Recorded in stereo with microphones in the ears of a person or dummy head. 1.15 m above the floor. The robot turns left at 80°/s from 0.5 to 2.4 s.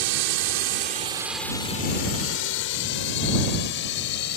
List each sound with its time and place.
0.0 s a drone: 70° right (ahead or behind); by 4.4 s 60° left (ahead or behind)